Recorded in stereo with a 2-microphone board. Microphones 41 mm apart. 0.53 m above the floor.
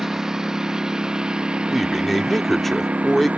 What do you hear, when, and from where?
0.0 s a lawn mower: 10° right (ahead or behind); by 3.4 s 35° right (ahead or behind)
1.7 s a man speaking: 5° left (ahead or behind)